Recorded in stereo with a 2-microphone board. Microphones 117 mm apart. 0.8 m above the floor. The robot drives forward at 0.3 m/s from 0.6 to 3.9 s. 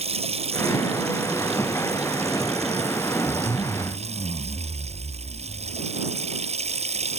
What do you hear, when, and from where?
0.0 s running water: 60° right (ahead or behind); by 7.2 s 65° right (ahead or behind)
3.3 s a zipper: 40° left (ahead or behind)